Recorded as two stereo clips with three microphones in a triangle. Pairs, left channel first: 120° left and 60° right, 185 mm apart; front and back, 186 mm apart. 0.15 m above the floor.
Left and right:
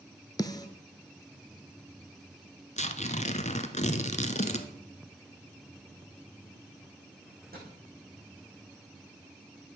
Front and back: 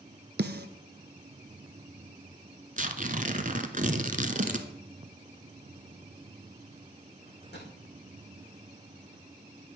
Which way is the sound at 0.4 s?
175° right.